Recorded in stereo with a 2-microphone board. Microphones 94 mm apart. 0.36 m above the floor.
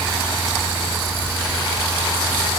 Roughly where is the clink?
No clink in this recording.